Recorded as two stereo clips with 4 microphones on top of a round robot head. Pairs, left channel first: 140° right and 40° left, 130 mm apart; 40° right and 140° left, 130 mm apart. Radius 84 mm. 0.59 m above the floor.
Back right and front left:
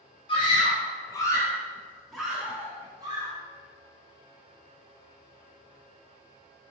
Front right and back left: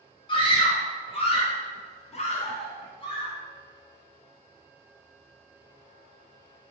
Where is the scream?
90° right, 1.5 m; by 3.3 s straight ahead, 1.0 m.